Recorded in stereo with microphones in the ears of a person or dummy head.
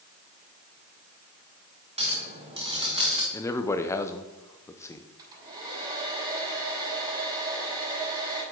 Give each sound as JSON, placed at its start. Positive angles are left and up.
{"t": 2.0, "sound": "a clink", "side_deg": -30, "distance_m": 1.4}
{"t": 3.3, "sound": "a man speaking", "side_deg": 20, "distance_m": 0.7}
{"t": 5.2, "sound": "a hair dryer", "side_deg": -25, "distance_m": 5.0}